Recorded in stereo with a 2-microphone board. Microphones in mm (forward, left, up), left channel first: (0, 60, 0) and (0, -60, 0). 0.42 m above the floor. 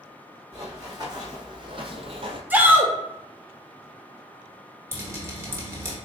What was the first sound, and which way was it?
Running footsteps, 30° right (ahead or behind).